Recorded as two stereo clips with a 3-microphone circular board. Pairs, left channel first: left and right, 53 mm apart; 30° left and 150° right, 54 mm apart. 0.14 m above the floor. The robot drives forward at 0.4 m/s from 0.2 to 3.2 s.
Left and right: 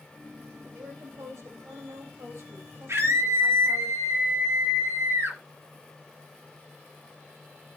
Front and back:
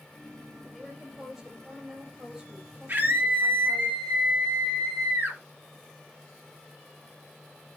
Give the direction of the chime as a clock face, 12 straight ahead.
No chime in this recording.